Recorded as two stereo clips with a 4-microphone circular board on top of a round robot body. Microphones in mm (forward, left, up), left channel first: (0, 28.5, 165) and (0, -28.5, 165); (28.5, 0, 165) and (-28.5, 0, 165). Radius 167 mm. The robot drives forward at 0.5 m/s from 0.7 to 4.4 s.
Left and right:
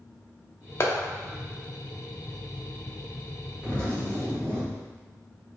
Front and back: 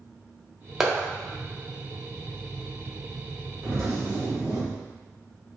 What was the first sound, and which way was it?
A clap, 100° left.